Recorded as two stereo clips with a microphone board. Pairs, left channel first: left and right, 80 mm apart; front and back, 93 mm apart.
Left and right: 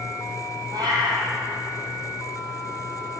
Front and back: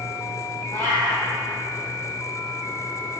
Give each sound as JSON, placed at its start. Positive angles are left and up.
{"t": 0.7, "sound": "a cat meowing", "azimuth_deg": -70, "distance_m": 2.5}